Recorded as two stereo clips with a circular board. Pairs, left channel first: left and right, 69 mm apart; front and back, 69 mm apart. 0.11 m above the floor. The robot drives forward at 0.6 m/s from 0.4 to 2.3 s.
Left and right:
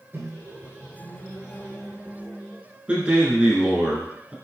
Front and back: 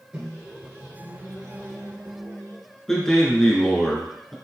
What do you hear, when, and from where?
0.1 s a microwave: 115° right, 1.4 m; by 2.6 s 155° right, 2.0 m
2.9 s a man speaking: 70° right, 1.1 m